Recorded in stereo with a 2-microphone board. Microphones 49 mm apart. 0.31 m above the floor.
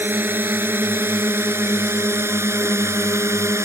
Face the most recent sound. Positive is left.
turn(degrees=-65)  # may be behind; listen again after turning